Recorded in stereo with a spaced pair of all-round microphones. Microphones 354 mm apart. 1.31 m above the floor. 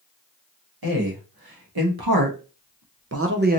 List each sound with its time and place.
0.8 s a man speaking: 75° right (ahead or behind), 1.4 m; by 3.6 s 20° right (ahead or behind), 0.6 m